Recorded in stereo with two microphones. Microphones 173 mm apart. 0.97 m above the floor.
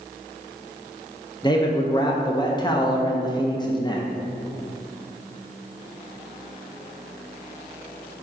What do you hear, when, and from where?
1.4 s a man speaking: 25° left (ahead or behind), 0.7 m